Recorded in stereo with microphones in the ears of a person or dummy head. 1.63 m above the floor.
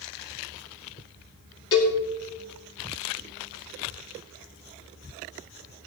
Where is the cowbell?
25° left (ahead or behind), 2.5 m.